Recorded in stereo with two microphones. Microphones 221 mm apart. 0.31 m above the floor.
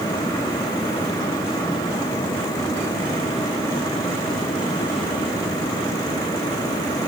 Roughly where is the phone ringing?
No phone ringing in this recording.